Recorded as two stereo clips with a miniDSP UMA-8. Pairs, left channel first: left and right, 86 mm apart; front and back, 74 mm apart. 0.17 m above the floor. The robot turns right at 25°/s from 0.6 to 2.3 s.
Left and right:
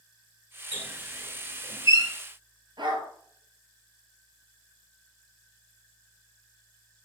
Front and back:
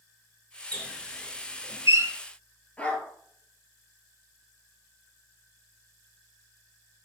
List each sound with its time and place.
0.7 s a squeak: 160° right, 2.5 m; by 2.1 s 125° right, 2.5 m
2.8 s a dog barking: 70° right, 1.5 m